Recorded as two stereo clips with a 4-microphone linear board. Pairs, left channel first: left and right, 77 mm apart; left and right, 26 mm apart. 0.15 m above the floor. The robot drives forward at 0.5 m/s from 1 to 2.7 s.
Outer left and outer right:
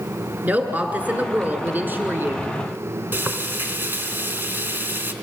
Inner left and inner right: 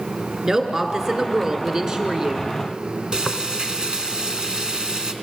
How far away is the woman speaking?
About 1.7 m.